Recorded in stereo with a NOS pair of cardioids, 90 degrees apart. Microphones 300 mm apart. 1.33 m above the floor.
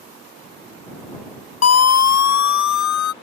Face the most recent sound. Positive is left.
turn(degrees=75)